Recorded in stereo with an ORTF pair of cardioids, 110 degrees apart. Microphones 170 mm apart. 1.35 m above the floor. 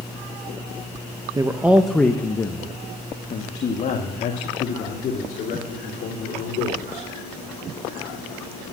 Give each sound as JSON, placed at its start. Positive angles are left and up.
{"t": 1.4, "sound": "a man speaking", "azimuth_deg": -20, "distance_m": 0.9}